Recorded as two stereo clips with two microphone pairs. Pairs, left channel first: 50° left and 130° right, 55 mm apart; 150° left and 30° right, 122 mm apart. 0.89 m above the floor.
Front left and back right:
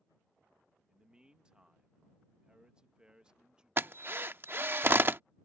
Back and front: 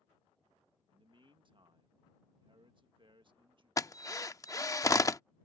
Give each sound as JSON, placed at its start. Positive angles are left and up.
{"t": 0.9, "sound": "a man speaking", "azimuth_deg": -60}
{"t": 3.8, "sound": "a drill", "azimuth_deg": -160}